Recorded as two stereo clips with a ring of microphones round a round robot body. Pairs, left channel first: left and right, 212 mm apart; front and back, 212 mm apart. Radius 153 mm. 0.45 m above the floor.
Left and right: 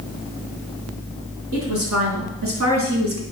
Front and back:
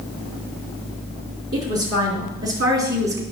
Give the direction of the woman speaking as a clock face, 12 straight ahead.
4 o'clock.